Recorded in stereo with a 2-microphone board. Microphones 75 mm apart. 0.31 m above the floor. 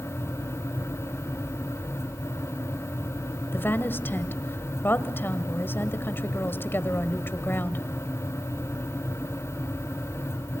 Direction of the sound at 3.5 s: 30° left (ahead or behind).